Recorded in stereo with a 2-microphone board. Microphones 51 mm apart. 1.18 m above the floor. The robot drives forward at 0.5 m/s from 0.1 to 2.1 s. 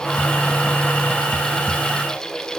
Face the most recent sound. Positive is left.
No sound to turn to.